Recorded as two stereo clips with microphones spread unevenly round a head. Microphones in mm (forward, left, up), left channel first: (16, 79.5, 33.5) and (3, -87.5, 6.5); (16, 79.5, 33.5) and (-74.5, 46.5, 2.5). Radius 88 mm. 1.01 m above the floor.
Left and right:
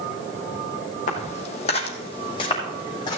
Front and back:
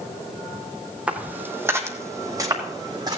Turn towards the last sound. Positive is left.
turn(degrees=145)